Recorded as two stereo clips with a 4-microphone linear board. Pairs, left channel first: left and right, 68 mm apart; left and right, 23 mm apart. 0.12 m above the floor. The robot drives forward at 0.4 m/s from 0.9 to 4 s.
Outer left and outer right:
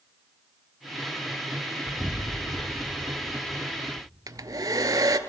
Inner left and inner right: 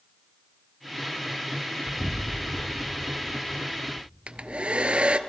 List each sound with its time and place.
1.9 s an explosion: 10° left (ahead or behind), 0.7 m; by 4.1 s 5° left (ahead or behind), 1.2 m
4.3 s a hair dryer: 60° right (ahead or behind), 0.6 m